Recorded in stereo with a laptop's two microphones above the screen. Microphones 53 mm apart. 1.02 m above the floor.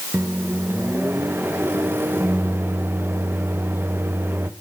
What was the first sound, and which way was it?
A microwave, 40° right (ahead or behind).